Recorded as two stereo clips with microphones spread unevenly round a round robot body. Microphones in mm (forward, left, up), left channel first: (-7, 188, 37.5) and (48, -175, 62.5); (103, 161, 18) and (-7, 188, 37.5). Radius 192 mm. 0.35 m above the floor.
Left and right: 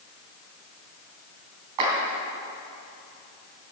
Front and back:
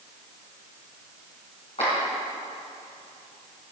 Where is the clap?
65° right, 3.5 m.